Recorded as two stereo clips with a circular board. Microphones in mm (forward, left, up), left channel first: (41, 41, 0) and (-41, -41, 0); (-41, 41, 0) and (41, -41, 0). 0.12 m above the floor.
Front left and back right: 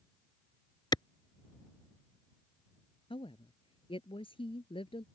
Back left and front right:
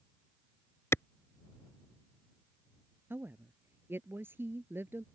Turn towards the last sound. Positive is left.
turn(degrees=25)